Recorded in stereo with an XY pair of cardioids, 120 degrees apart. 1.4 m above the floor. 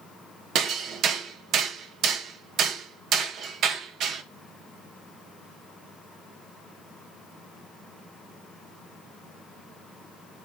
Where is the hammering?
65° right, 1.5 m.